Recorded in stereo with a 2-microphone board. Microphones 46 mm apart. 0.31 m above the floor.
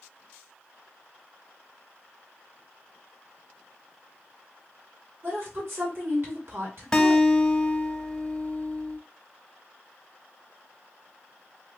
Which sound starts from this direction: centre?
A guitar, at 6.9 s.